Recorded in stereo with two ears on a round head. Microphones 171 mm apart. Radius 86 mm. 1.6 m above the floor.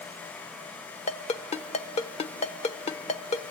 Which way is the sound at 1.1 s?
30° left (ahead or behind).